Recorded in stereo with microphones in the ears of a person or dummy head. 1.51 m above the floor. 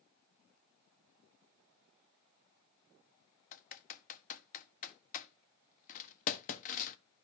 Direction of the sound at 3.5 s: 50° left (ahead or behind).